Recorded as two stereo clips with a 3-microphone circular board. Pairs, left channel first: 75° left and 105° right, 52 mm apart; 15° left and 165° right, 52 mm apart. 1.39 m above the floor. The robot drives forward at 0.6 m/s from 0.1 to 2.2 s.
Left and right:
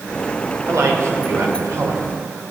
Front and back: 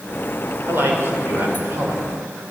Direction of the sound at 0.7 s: 120° right.